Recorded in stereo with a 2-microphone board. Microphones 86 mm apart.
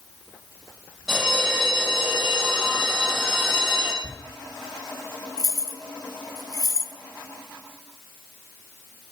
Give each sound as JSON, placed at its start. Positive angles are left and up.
{"t": 1.1, "sound": "a bell", "side_deg": -5, "distance_m": 4.0}
{"t": 4.0, "sound": "a thud", "side_deg": -5, "distance_m": 2.0}
{"t": 5.4, "sound": "keys jangling", "side_deg": 45, "distance_m": 1.8}